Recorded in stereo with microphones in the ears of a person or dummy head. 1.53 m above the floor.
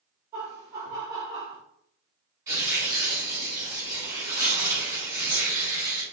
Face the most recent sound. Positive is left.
turn(degrees=-20)  # may be behind; listen again after turning